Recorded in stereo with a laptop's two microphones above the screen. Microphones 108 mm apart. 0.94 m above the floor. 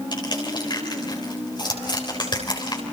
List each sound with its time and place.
0.1 s crushing: 45° left (ahead or behind), 4 m